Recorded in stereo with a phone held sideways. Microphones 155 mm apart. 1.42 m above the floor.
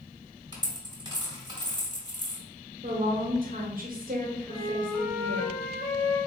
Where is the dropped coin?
30° right (ahead or behind), 1.2 m.